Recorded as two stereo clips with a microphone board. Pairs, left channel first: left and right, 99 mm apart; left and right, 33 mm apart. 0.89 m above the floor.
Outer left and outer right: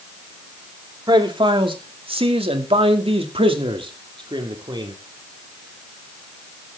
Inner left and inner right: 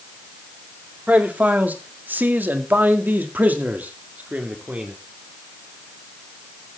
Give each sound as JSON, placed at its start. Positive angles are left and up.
{"t": 1.1, "sound": "a man speaking", "side_deg": -50, "distance_m": 2.0}